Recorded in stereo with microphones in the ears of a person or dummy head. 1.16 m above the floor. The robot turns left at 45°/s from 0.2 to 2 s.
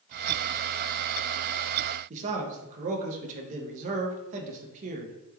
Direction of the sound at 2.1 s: 40° right (ahead or behind).